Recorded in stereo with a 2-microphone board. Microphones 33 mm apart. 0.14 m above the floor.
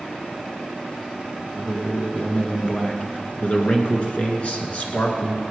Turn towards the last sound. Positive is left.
turn(degrees=45)  # may be behind; listen again after turning